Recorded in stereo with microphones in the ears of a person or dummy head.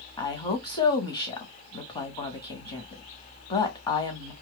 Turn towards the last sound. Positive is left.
turn(degrees=25)  # may be behind; listen again after turning